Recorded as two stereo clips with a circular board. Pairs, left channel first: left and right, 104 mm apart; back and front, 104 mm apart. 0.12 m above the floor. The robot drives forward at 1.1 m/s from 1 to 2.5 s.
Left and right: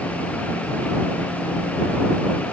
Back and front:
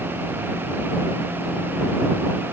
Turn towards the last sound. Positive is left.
No sound to turn to.